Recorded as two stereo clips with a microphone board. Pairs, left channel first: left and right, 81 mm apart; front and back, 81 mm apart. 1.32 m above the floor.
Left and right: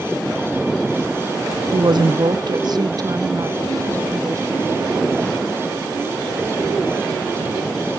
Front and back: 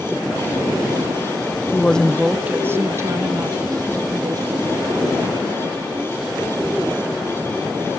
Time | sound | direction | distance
1.7 | a woman speaking | 60° right | 0.7 m